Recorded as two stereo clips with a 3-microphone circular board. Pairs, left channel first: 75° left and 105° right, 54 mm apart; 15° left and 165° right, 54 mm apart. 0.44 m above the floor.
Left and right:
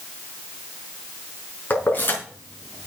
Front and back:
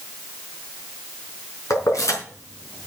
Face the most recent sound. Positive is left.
turn(degrees=30)